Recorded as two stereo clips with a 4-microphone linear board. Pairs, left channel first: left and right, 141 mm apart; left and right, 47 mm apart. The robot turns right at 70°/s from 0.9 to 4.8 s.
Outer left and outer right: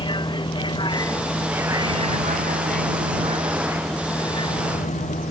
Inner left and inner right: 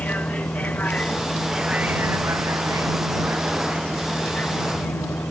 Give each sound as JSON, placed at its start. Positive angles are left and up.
{"t": 0.0, "sound": "a vehicle", "azimuth_deg": 145}